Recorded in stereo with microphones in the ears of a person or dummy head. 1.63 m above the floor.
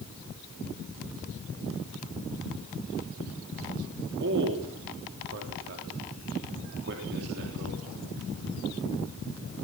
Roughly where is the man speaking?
Right.